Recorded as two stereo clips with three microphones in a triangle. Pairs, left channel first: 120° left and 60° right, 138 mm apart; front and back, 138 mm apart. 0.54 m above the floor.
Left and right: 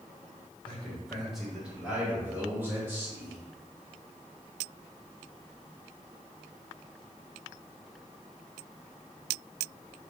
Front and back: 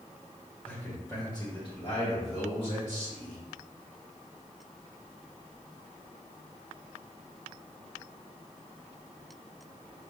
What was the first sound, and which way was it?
A man speaking, 55° left.